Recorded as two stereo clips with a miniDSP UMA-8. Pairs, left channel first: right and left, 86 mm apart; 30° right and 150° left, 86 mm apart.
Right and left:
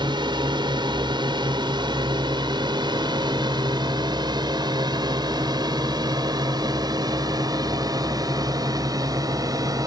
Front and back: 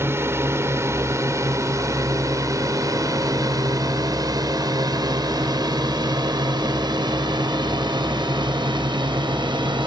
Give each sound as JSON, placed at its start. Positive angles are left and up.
{"t": 0.0, "sound": "a drone", "azimuth_deg": 95}